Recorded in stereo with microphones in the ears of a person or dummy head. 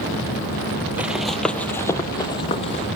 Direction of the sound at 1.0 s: 5° right (ahead or behind).